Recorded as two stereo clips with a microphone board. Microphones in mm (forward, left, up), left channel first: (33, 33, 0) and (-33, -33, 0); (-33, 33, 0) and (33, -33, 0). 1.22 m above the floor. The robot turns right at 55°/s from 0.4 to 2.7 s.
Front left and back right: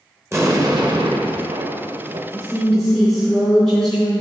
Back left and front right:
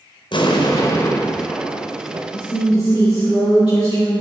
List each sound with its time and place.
0.3 s an explosion: 165° left, 0.8 m; by 2.2 s 95° right, 0.8 m
2.3 s a woman speaking: 115° left, 2.5 m; by 4.2 s 135° left, 2.5 m